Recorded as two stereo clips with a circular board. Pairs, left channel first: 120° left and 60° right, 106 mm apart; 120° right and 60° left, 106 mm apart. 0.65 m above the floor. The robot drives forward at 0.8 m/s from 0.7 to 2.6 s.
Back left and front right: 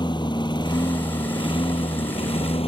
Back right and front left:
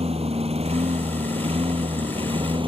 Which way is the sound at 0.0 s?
75° left.